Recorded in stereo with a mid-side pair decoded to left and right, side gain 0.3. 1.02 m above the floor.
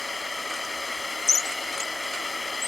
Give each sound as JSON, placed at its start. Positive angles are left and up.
{"t": 0.0, "sound": "a drone", "azimuth_deg": 35}